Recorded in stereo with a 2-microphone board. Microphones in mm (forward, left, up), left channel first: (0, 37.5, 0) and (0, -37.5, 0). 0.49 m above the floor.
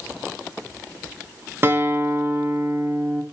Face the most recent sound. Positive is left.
turn(degrees=-30)  # may be behind; listen again after turning